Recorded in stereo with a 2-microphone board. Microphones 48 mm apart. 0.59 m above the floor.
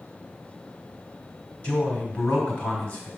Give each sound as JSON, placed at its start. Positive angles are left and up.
{"t": 1.6, "sound": "a man speaking", "side_deg": 35, "distance_m": 2.0}